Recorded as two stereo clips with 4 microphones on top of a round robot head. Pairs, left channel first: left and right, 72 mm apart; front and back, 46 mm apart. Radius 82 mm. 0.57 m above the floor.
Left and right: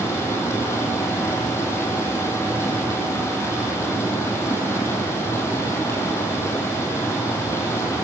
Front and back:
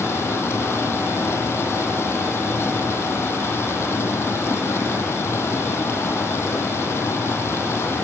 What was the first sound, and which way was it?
Running water, 30° left.